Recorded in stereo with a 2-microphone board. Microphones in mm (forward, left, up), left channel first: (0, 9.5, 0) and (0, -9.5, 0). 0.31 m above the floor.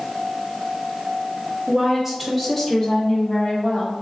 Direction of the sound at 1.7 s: 20° right (ahead or behind).